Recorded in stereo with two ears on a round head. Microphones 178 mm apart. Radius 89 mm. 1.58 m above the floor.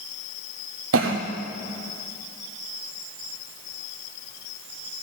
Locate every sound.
0.9 s a cough: 70° right (ahead or behind), 0.8 m